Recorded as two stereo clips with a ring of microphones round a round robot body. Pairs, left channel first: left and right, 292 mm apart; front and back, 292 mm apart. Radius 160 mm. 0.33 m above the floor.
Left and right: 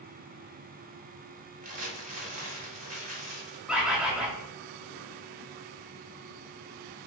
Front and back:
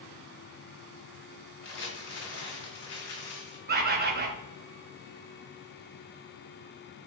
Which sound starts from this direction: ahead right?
Crumpling, at 1.6 s.